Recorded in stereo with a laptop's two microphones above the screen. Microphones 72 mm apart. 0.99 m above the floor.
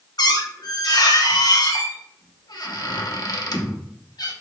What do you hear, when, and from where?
0.2 s a squeak: 70° left (ahead or behind), 0.8 m